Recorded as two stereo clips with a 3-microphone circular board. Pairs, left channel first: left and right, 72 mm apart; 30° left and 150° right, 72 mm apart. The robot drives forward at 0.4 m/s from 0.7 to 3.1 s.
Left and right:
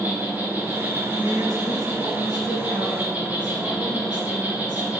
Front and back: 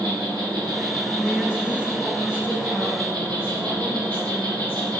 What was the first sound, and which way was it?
An insect, 150° right.